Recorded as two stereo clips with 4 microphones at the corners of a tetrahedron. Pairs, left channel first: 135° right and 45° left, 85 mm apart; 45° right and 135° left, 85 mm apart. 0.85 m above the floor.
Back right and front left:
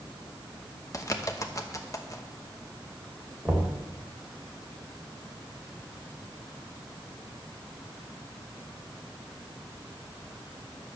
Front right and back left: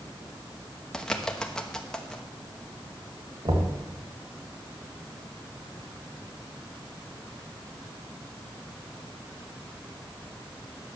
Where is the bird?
125° right, 1.0 m.